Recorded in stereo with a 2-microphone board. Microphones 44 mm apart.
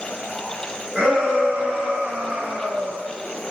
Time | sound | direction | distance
0.9 | a shout | 20° right (ahead or behind) | 1.9 m